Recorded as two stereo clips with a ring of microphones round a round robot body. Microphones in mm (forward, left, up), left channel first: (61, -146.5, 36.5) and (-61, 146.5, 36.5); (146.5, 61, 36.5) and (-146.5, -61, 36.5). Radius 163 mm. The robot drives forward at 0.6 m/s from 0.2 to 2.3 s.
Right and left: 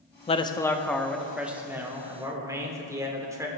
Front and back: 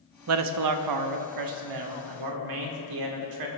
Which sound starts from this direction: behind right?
A man speaking, at 0.3 s.